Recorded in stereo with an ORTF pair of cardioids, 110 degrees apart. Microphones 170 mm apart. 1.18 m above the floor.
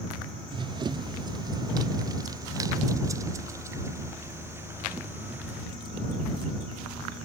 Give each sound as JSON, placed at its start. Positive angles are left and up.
{"t": 0.5, "sound": "running footsteps", "azimuth_deg": -30}